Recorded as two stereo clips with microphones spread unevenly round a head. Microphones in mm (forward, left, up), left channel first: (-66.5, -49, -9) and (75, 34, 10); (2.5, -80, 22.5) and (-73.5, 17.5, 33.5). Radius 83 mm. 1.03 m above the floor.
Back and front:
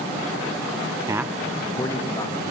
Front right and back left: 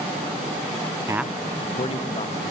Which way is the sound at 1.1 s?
90° left.